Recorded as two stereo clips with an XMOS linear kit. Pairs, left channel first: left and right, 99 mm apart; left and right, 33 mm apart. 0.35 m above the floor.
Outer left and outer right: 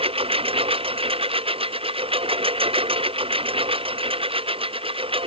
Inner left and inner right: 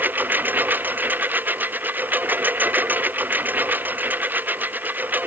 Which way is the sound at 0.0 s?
75° right (ahead or behind).